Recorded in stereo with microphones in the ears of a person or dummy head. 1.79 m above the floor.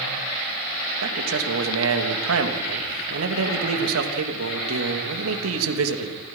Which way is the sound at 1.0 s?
85° right.